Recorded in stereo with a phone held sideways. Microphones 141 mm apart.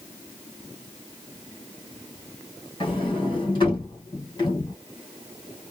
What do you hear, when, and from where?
2.8 s a sliding door: 35° left (ahead or behind), 2 m